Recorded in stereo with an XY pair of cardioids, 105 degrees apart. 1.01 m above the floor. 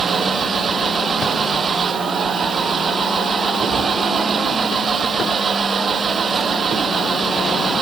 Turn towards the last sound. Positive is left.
turn(degrees=-40)